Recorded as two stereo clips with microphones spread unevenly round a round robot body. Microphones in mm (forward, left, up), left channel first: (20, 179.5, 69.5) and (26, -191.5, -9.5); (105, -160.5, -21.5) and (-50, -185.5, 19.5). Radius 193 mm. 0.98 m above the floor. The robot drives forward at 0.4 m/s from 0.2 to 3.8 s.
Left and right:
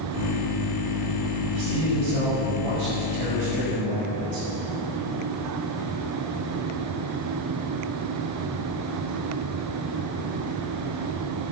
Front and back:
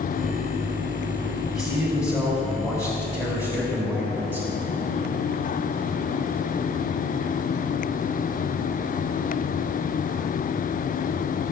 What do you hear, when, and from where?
1.5 s a man speaking: 60° right, 6 m; by 4.5 s 70° right, 5.5 m